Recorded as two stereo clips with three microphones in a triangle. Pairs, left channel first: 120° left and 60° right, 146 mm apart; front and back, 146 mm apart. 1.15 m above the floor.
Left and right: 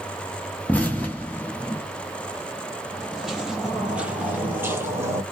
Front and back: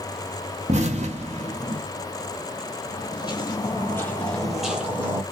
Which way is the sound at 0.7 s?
165° right.